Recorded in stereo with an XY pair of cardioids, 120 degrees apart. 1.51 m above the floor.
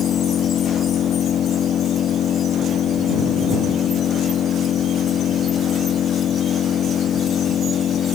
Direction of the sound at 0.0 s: 50° left.